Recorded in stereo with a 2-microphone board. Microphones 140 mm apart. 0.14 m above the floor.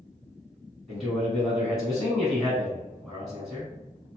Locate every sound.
0.9 s a man speaking: centre (ahead or behind), 1.3 m